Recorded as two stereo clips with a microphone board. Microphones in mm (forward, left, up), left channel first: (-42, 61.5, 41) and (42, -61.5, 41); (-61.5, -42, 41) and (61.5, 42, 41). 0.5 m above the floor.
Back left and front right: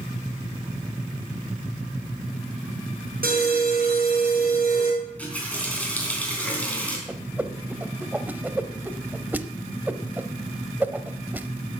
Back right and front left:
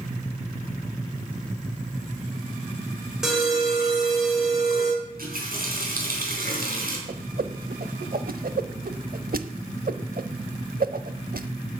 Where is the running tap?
45° left, 4 m.